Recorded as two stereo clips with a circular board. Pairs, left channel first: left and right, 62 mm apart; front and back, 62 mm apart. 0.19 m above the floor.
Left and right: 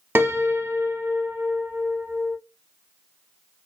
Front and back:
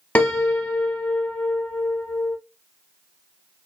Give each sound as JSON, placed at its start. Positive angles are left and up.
{"t": 0.1, "sound": "a piano", "azimuth_deg": -60, "distance_m": 0.5}